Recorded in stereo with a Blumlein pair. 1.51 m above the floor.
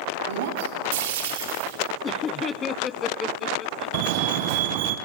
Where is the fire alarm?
45° right, 1.9 m.